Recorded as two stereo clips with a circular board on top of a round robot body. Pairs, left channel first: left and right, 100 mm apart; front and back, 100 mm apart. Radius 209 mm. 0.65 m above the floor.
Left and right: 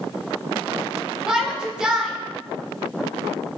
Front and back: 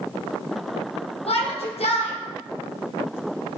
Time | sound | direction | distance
1.3 | a shout | 10° right | 2.5 m